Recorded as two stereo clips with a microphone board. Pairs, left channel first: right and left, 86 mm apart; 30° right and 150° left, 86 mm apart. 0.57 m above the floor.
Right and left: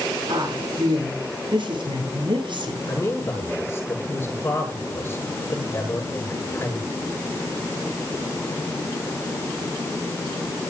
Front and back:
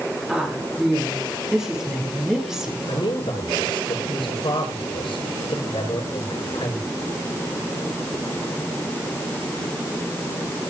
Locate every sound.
0.3 s a woman speaking: 65° left, 8.5 m
2.9 s a man speaking: 25° right, 8.5 m